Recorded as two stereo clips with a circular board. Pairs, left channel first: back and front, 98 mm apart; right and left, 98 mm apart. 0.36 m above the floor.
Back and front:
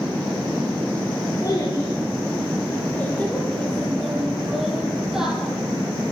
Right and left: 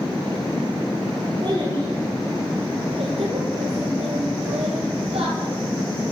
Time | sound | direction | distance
1.4 | a child speaking | 130° left | 4 m